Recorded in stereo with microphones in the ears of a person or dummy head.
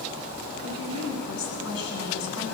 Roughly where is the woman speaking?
Left.